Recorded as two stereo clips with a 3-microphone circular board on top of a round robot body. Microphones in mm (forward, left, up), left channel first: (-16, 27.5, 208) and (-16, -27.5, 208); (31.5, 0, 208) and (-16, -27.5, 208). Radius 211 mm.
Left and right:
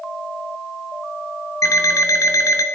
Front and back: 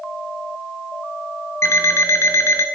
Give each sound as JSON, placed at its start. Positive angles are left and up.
{"t": 1.6, "sound": "an alarm clock", "azimuth_deg": 65, "distance_m": 0.7}